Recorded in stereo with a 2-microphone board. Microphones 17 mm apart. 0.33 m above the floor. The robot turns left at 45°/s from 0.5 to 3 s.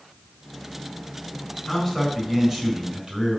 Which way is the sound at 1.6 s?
10° left.